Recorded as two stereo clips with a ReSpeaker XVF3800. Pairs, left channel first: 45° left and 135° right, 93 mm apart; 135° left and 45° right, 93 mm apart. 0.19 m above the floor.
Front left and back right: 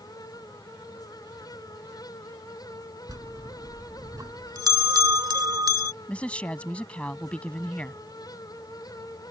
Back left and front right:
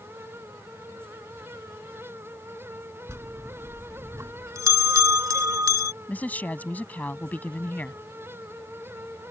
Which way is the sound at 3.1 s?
95° right.